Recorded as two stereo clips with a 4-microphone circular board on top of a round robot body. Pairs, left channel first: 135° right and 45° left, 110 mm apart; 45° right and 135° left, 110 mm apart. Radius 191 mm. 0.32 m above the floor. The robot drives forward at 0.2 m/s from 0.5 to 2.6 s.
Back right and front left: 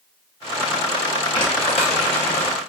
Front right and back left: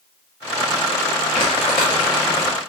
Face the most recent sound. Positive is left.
turn(degrees=-110)